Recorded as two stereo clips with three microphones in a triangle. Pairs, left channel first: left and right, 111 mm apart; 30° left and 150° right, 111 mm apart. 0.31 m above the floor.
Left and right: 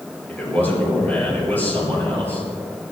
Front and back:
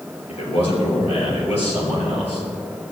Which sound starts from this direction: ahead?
A man speaking, at 0.3 s.